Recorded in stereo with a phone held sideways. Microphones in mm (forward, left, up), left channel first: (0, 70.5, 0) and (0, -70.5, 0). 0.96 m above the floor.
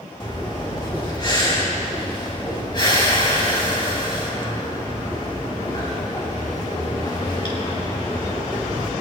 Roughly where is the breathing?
Left.